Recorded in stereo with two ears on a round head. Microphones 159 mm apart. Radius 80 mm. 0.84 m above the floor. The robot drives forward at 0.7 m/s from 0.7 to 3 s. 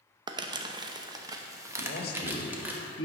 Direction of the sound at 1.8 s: 55° left (ahead or behind).